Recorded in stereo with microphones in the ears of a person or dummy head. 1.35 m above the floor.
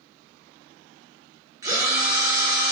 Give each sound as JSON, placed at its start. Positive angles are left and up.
{"t": 1.6, "sound": "a drill", "side_deg": -15, "distance_m": 0.8}